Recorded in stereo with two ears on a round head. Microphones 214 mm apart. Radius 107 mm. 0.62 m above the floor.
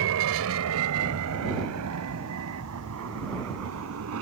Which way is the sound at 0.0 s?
60° right (ahead or behind).